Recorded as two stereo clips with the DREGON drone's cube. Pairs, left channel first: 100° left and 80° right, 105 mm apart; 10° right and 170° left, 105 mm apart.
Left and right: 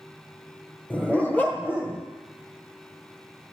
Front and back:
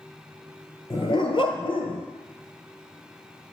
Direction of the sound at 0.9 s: 25° left.